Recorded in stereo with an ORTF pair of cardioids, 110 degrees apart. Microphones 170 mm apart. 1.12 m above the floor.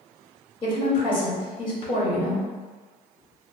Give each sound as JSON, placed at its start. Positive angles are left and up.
{"t": 0.6, "sound": "a woman speaking", "azimuth_deg": 30, "distance_m": 1.6}